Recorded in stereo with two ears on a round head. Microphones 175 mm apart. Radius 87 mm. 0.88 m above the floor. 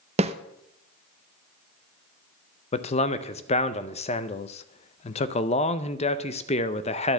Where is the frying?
I don't hear frying.